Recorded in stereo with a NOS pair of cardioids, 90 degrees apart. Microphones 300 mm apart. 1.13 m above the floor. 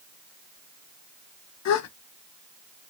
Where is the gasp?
65° left, 0.5 m.